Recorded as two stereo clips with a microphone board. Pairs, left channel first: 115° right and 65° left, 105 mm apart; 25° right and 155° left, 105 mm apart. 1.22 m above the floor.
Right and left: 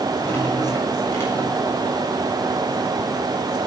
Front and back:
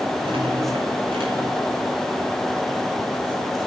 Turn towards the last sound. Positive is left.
turn(degrees=-175)